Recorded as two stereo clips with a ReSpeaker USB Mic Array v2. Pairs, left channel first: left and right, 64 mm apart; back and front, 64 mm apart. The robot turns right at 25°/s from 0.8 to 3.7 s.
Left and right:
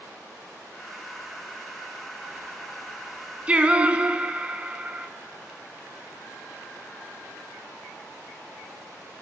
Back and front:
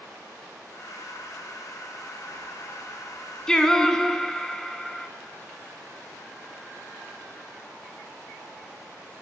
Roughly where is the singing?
Behind right.